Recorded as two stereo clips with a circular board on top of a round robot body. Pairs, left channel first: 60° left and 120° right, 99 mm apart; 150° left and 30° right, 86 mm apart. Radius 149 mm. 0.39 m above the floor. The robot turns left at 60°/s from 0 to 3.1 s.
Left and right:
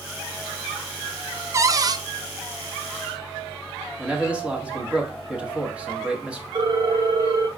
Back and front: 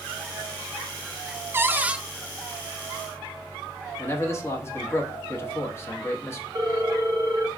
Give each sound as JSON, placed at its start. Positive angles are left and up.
{"t": 1.5, "sound": "a cupboard door", "azimuth_deg": -75, "distance_m": 0.5}
{"t": 4.0, "sound": "a man speaking", "azimuth_deg": 170, "distance_m": 1.4}
{"t": 6.5, "sound": "a ringtone", "azimuth_deg": -80, "distance_m": 1.1}